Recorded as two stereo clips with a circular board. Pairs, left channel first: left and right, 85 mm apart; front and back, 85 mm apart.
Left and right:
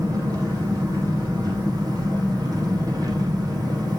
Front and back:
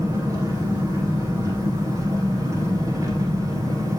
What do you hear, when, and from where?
0.0 s an engine running: 130° right, 5 m